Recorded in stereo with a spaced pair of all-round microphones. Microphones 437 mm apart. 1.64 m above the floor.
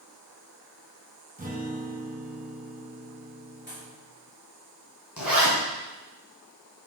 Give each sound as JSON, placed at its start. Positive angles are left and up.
{"t": 1.4, "sound": "a guitar", "side_deg": -20, "distance_m": 1.7}
{"t": 3.7, "sound": "a pop", "side_deg": 25, "distance_m": 3.0}
{"t": 5.2, "sound": "a zipper", "side_deg": 50, "distance_m": 2.5}